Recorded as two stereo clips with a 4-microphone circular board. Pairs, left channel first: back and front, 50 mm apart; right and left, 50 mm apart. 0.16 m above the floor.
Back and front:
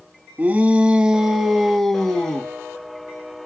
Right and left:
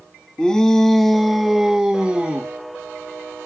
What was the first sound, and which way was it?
A shout, 25° right.